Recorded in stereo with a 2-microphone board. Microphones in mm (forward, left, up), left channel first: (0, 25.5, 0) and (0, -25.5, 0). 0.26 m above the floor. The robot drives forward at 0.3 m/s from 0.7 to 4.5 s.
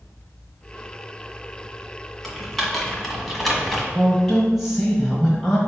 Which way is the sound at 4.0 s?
Centre (ahead or behind).